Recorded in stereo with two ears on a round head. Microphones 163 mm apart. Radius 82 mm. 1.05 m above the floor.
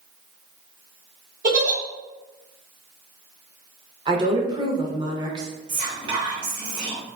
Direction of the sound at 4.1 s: 25° right (ahead or behind).